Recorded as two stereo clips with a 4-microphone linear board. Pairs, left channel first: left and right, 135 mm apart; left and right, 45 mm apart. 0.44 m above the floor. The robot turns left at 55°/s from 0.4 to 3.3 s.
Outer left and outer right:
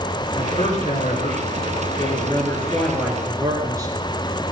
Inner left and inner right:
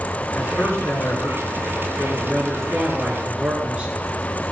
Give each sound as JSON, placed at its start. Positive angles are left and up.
{"t": 0.3, "sound": "a man speaking", "azimuth_deg": 135, "distance_m": 6.0}